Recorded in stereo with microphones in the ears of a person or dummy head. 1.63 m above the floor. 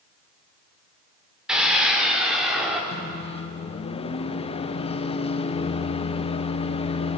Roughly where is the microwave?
Left.